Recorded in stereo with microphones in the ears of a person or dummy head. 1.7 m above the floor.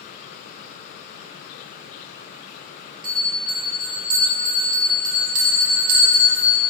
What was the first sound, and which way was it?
A bell, 55° right (ahead or behind).